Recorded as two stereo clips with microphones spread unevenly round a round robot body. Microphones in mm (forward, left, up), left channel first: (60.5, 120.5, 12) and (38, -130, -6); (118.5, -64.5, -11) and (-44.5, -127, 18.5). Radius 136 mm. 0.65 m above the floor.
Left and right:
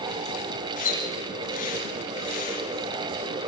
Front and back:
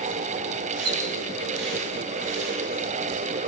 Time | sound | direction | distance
0.8 | a splash | 150° left | 4.5 m